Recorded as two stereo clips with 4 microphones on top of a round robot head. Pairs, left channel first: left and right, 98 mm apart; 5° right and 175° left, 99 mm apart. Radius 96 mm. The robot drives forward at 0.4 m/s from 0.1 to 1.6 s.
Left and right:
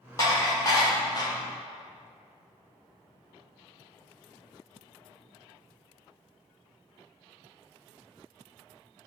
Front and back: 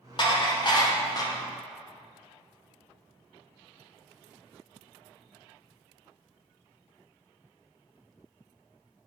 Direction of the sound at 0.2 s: 30° left.